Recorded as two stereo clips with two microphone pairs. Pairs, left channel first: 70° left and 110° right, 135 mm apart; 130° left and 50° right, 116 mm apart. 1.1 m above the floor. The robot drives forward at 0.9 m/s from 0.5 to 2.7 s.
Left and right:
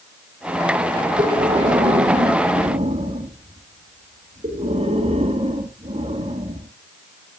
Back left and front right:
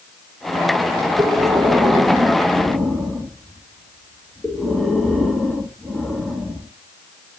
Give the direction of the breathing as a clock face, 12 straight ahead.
3 o'clock.